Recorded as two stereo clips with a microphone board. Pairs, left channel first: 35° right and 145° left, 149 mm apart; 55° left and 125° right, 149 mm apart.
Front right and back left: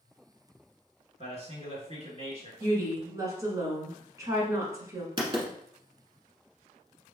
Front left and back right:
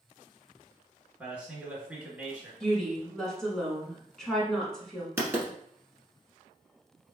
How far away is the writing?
About 1.0 m.